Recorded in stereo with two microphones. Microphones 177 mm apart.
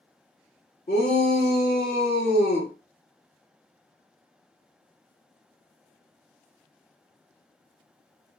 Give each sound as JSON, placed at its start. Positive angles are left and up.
{"t": 0.9, "sound": "a shout", "side_deg": 55, "distance_m": 1.4}